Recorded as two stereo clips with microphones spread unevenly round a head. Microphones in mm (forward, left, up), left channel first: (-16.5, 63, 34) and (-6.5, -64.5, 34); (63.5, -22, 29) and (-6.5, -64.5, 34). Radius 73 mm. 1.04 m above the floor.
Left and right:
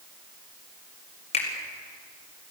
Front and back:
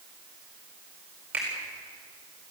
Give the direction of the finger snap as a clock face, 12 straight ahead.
8 o'clock.